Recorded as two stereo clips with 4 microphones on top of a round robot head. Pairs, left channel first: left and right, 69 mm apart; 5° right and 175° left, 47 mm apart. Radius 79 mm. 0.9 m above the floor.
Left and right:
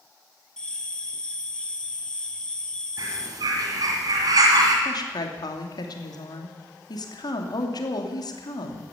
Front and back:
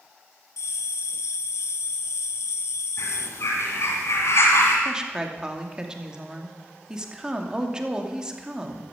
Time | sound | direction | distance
0.6 | a bell | 10° left | 1.0 m
3.0 | a bird | 45° right | 2.5 m
4.8 | a woman speaking | 100° left | 2.5 m